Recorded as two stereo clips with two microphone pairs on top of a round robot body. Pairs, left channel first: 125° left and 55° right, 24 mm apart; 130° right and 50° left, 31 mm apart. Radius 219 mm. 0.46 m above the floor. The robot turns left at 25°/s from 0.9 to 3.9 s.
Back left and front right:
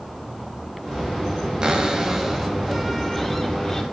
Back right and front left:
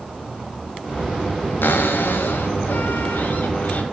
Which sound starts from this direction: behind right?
A cupboard door, at 1.6 s.